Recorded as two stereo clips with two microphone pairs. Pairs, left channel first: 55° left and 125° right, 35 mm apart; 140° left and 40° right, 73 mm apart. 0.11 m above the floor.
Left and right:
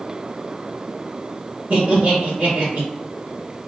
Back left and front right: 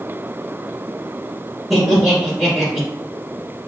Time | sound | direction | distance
1.7 | laughter | 125° right | 2.0 m